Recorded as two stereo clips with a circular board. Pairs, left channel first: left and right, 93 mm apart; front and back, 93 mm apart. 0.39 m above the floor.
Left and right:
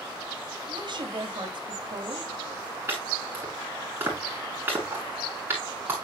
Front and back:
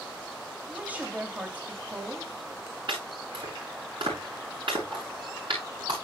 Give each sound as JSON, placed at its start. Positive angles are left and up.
{"t": 0.7, "sound": "a woman speaking", "azimuth_deg": -110, "distance_m": 2.5}
{"t": 2.9, "sound": "chopping", "azimuth_deg": -155, "distance_m": 8.0}